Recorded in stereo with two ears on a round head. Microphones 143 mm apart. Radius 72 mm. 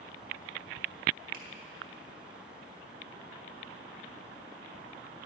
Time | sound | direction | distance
1.3 | a finger snap | 55° right (ahead or behind) | 1.6 m